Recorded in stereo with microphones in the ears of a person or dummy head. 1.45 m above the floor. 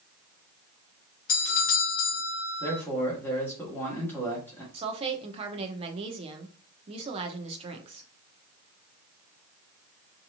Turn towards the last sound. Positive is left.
turn(degrees=-30)  # may be behind; listen again after turning